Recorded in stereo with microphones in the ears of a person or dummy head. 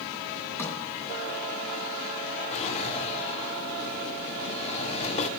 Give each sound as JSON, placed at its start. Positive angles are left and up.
{"t": 0.6, "sound": "a sliding door", "side_deg": 15, "distance_m": 3.0}
{"t": 2.5, "sound": "a drawer", "side_deg": 35, "distance_m": 1.7}